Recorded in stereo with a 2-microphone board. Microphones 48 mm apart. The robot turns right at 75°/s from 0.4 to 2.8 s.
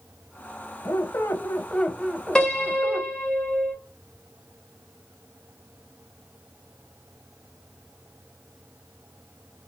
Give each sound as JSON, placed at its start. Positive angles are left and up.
{"t": 0.8, "sound": "a squeak", "azimuth_deg": 80, "distance_m": 0.6}
{"t": 2.4, "sound": "a piano", "side_deg": 15, "distance_m": 1.1}